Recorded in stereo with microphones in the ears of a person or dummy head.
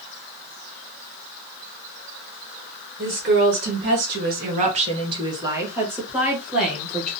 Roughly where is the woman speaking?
Right.